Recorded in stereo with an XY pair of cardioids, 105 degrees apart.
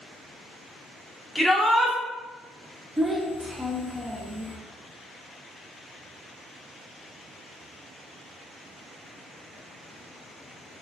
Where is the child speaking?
15° right, 0.8 m.